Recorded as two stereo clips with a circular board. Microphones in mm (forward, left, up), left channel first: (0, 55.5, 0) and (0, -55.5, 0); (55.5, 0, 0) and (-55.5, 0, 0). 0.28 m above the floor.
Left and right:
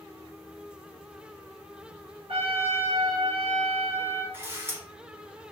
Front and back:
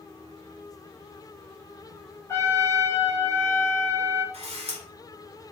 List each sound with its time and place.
2.3 s a trumpet: 65° right, 0.9 m
4.3 s a camera shutter: 160° right, 0.8 m